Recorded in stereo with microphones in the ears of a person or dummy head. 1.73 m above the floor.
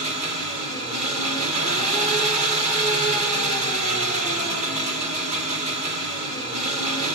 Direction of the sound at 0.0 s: 35° right (ahead or behind).